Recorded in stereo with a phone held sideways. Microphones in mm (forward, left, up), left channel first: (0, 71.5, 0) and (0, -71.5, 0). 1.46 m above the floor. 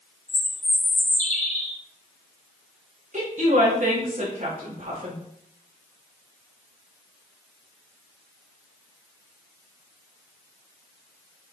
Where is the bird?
55° left (ahead or behind), 1.7 m.